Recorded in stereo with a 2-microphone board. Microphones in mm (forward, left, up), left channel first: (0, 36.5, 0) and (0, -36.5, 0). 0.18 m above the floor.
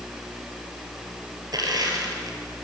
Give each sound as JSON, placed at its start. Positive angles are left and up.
{"t": 1.5, "sound": "crushing", "side_deg": -60, "distance_m": 4.0}